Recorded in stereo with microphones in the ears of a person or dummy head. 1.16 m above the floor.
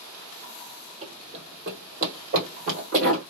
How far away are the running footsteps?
About 2 m.